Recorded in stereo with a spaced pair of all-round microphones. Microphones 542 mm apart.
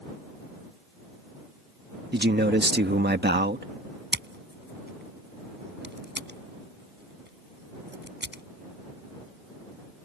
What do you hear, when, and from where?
2.1 s a man speaking: 20° right (ahead or behind)
4.1 s scissors: 20° right (ahead or behind)